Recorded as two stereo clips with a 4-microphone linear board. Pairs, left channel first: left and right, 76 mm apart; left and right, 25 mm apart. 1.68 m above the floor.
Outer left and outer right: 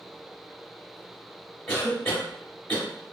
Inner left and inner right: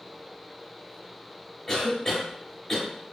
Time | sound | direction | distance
1.7 | a cough | 30° left (ahead or behind) | 1.1 m